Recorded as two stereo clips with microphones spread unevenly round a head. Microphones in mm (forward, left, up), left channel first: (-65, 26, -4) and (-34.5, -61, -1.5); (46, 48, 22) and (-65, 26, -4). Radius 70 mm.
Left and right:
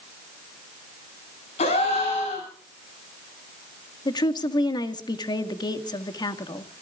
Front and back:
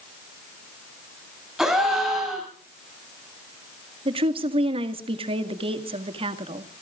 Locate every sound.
1.6 s a gasp: 105° left, 9 m
4.0 s a woman speaking: 150° left, 1.8 m